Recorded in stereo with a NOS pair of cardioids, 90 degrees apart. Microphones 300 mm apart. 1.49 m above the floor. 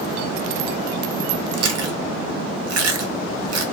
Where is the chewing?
60° right, 0.8 m.